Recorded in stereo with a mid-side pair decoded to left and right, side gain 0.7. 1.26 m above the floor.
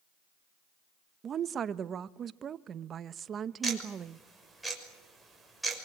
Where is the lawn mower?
No lawn mower in this recording.